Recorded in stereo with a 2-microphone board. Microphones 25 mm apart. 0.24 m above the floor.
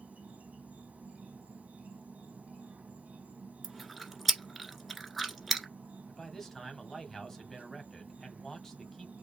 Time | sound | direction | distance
0.0 | an insect | 85° right | 1.5 m
3.6 | chewing | 5° left (ahead or behind) | 1.4 m
6.1 | a man speaking | 15° left (ahead or behind) | 1.6 m